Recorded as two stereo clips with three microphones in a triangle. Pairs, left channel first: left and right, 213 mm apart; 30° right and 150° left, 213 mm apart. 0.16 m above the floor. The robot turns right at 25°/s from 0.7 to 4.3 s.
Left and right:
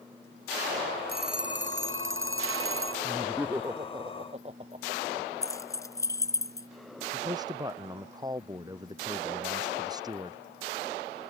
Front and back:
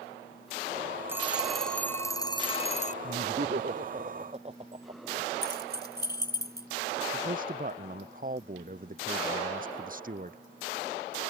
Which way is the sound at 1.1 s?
130° right.